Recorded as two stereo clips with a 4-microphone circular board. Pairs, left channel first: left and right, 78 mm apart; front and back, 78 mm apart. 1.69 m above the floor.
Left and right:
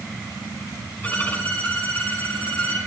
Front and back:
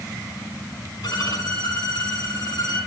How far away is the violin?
About 6 m.